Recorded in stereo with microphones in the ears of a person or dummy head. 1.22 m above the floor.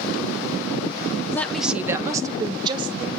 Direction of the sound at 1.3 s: 15° left (ahead or behind).